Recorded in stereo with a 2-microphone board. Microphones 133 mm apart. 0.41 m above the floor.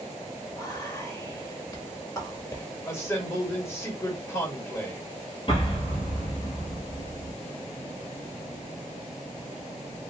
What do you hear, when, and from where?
0.5 s whispering: 30° left (ahead or behind), 1.2 m
2.9 s a man speaking: 20° left (ahead or behind), 1.7 m
5.5 s an explosion: 40° left (ahead or behind), 1.3 m